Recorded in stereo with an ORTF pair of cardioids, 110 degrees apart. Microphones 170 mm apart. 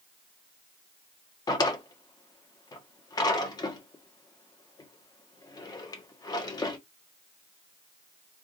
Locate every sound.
1.5 s a drawer: 25° left, 1.3 m